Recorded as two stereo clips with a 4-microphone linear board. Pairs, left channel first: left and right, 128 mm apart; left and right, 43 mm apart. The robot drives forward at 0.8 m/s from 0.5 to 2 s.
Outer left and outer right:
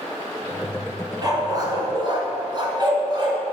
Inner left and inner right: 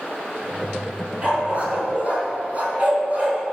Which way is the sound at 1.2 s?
30° right (ahead or behind).